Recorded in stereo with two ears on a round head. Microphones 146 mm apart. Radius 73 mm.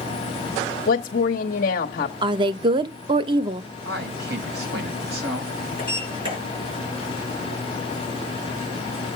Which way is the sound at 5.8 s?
35° right (ahead or behind).